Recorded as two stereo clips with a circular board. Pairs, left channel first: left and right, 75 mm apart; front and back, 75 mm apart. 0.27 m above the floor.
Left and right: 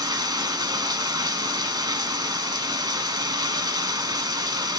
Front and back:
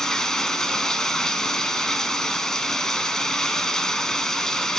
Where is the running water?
80° right, 0.9 m.